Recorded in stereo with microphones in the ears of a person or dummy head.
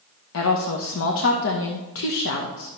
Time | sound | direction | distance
0.3 | a woman speaking | 70° left (ahead or behind) | 1.0 m